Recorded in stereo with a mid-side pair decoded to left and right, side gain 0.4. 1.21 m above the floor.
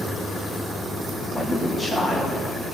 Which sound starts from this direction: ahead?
A man speaking, at 1.3 s.